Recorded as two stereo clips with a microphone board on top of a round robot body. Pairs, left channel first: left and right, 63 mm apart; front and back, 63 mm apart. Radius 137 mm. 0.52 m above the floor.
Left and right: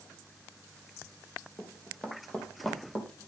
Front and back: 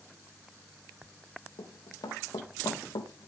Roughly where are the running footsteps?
Ahead.